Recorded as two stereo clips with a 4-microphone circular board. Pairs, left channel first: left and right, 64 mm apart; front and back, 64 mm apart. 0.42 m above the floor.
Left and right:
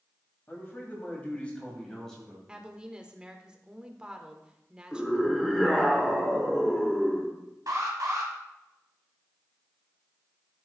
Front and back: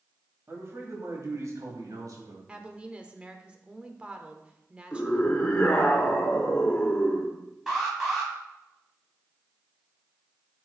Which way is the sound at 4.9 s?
20° left.